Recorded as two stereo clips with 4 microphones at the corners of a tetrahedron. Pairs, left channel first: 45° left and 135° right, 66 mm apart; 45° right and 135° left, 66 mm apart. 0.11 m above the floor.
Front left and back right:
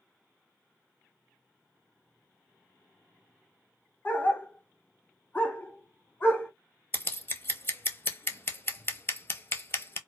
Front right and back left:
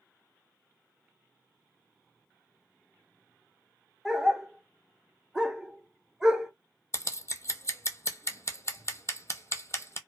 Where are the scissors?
5° right, 0.5 m.